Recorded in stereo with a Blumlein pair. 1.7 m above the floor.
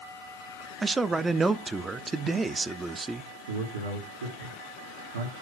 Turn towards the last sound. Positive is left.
turn(degrees=-70)